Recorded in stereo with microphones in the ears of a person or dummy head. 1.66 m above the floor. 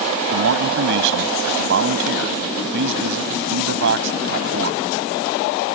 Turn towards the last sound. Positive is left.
turn(degrees=-60)  # may be behind; listen again after turning